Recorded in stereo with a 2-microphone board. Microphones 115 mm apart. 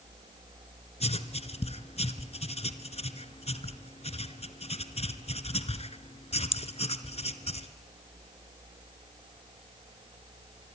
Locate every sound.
1.0 s writing: 70° left (ahead or behind), 1.2 m